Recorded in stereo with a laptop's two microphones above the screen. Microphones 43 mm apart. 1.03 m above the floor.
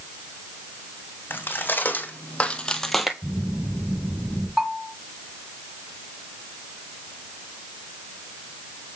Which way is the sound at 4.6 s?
10° right (ahead or behind).